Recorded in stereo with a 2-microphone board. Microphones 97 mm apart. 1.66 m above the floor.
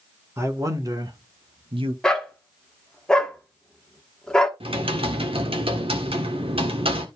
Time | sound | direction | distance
0.4 | a man speaking | 30° right (ahead or behind) | 2 m
2.0 | a dog barking | 10° left (ahead or behind) | 1.3 m
4.6 | typing on a keyboard | 85° right | 1.6 m